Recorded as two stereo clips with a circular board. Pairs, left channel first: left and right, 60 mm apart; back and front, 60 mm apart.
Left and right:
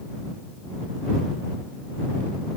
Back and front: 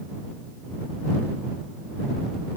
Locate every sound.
Only background noise.